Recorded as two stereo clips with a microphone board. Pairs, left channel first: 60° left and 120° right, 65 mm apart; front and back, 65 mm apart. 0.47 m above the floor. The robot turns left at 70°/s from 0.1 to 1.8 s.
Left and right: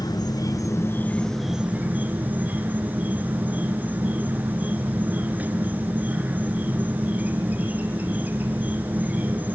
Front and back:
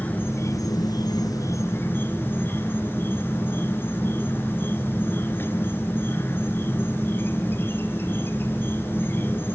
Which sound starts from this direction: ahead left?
An insect, at 0.0 s.